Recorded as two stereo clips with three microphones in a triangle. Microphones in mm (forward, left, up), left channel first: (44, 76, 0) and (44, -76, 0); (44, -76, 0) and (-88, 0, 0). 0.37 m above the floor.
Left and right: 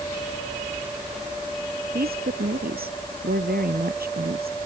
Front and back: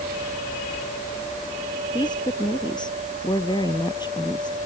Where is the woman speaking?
90° right.